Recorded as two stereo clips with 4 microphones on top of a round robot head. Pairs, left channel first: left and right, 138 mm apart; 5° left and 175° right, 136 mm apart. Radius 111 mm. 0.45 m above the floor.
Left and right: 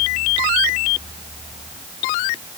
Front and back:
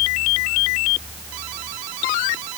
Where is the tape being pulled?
No tape being pulled in this recording.